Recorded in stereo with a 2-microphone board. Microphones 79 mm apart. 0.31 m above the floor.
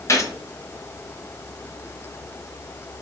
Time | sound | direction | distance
0.1 | a gunshot | 40° left (ahead or behind) | 0.8 m